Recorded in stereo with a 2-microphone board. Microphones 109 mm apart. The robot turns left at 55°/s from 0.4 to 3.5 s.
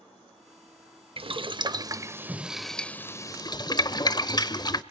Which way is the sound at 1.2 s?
60° right (ahead or behind).